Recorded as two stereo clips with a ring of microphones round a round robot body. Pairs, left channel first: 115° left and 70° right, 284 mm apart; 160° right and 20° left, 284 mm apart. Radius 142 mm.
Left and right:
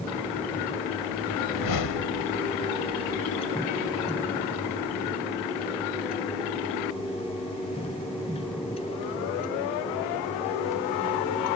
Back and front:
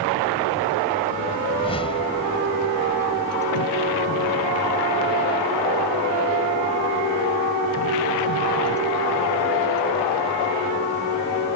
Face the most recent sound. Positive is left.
turn(degrees=130)